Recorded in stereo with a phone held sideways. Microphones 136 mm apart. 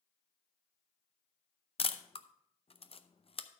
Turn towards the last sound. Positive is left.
turn(degrees=45)  # may be behind; listen again after turning